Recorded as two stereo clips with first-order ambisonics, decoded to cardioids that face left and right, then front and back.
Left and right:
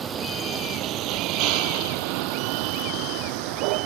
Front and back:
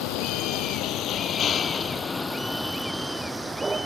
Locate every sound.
0.0 s a vehicle: 25° right; by 3.9 s 105° right